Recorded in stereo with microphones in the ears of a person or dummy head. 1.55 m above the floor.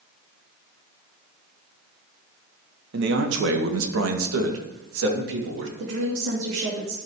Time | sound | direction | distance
2.9 | a man speaking | 65° right (ahead or behind) | 1.4 m
5.8 | a woman speaking | 85° right | 2.5 m